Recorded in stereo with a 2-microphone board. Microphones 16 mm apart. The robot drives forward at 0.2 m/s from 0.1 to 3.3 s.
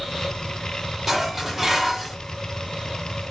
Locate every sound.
1.1 s dishes clattering: 25° right (ahead or behind), 0.7 m; by 2.2 s 20° right (ahead or behind), 0.9 m